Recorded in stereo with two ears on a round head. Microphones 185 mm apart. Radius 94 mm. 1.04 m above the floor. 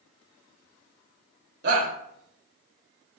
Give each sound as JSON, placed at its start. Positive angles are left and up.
{"t": 1.6, "sound": "a shout", "side_deg": -55, "distance_m": 3.0}